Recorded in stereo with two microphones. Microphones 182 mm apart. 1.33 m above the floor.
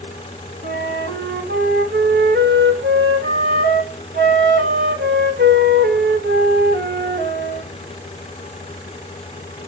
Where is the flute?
65° right (ahead or behind), 2 m.